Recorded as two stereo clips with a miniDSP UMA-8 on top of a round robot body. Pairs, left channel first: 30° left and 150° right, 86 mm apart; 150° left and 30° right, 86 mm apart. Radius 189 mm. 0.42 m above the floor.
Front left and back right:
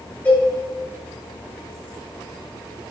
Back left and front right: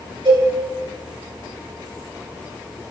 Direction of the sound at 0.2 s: 40° right.